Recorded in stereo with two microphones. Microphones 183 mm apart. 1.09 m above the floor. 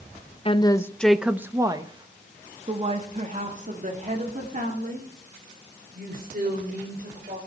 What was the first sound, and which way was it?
A woman speaking, 30° left (ahead or behind).